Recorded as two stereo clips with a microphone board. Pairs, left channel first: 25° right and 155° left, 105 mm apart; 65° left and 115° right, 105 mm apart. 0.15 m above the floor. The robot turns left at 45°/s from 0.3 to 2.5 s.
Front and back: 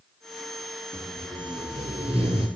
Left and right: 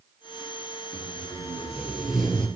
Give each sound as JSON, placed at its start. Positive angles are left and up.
{"t": 0.9, "sound": "tape being pulled", "azimuth_deg": -145, "distance_m": 1.2}